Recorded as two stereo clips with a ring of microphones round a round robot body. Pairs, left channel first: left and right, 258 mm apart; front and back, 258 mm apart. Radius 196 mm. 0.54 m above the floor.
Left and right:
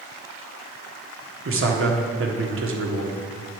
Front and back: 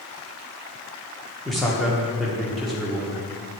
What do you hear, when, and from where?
1.4 s a man speaking: 90° right, 1.4 m